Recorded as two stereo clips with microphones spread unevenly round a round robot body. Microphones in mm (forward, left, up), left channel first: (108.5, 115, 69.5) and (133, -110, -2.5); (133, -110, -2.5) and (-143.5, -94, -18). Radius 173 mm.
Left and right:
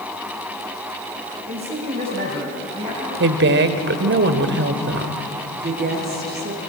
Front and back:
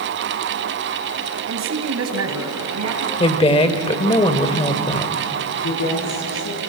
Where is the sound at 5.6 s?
35° right, 7.5 m.